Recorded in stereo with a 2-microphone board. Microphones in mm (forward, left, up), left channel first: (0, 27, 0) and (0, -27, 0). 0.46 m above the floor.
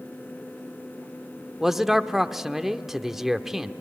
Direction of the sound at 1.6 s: 5° right (ahead or behind).